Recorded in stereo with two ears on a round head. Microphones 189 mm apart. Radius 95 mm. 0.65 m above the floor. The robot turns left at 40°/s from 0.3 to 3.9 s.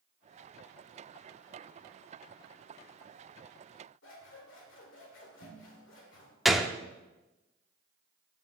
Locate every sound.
4.0 s scissors: 65° left (ahead or behind), 2.5 m
6.5 s a gunshot: centre (ahead or behind), 0.5 m